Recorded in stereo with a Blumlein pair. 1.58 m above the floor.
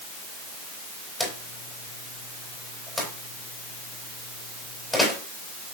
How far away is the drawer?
About 4 m.